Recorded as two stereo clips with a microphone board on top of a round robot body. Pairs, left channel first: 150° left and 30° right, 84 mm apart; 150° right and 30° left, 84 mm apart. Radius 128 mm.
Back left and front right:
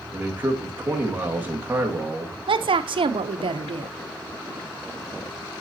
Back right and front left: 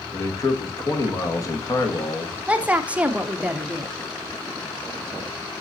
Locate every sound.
0.1 s a man speaking: 100° right, 1.5 m
2.5 s a woman speaking: 45° right, 0.7 m